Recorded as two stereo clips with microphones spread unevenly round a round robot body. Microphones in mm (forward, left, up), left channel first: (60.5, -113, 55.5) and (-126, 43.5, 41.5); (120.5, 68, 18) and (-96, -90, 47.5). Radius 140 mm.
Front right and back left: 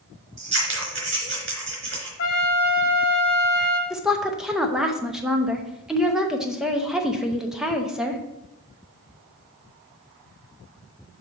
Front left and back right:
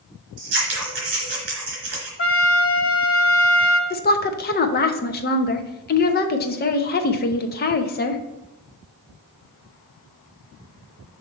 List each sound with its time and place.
0.4 s scissors: straight behind, 3 m
2.2 s a trumpet: straight ahead, 0.8 m
3.9 s a woman speaking: 55° left, 0.8 m